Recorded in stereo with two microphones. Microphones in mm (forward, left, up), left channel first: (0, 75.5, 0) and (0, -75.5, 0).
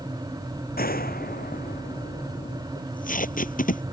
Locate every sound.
0.8 s a gunshot: 80° left
2.8 s tape being pulled: 65° left (ahead or behind)